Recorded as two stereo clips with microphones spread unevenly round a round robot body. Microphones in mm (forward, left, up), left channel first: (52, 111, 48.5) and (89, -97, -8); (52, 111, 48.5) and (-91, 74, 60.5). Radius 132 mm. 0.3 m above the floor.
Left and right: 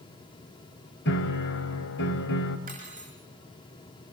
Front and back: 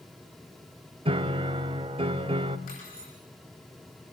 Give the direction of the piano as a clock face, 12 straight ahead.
7 o'clock.